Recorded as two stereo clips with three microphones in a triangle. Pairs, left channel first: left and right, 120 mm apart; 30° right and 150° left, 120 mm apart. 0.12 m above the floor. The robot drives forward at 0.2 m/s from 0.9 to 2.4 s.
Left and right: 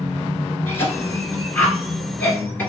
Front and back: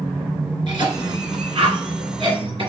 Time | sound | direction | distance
0.7 | a cough | 150° left | 1.8 m